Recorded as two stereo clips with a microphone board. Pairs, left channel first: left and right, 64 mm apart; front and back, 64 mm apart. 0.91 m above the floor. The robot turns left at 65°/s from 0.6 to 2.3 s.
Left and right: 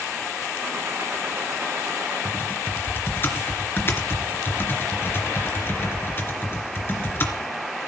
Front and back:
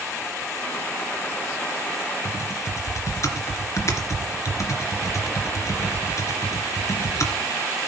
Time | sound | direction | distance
2.2 | typing on a keyboard | 40° left | 3 m